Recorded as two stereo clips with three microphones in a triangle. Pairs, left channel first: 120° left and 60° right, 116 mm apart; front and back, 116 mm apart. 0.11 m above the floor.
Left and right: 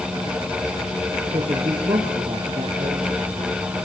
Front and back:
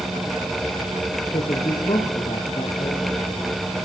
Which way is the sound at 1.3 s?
20° right.